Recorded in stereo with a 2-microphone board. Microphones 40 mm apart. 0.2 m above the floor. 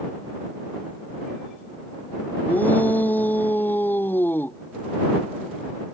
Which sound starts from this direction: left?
A shout, at 2.5 s.